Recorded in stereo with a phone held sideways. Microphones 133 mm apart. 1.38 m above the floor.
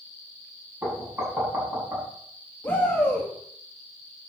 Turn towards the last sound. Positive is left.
turn(degrees=15)  # may be behind; listen again after turning